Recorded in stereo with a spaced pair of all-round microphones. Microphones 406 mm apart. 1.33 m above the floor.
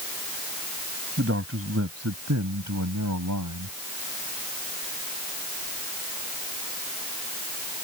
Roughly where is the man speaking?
Right.